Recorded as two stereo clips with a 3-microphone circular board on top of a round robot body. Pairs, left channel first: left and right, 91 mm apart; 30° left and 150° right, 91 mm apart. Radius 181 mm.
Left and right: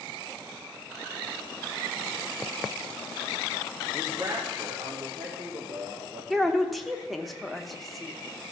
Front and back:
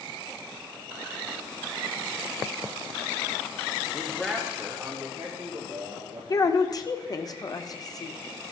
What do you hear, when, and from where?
3.9 s a man speaking: 35° right, 1.2 m; by 6.2 s 110° right, 2.5 m
6.3 s a woman speaking: straight ahead, 1.0 m